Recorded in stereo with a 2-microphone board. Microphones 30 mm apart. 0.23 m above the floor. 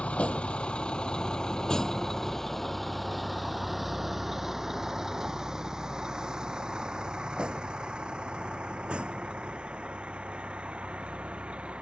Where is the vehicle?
45° left (ahead or behind); by 11.8 s 45° right (ahead or behind).